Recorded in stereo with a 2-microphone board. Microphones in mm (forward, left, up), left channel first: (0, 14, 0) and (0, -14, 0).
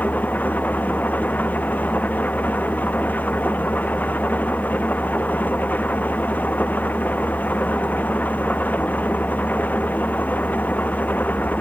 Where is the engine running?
80° left.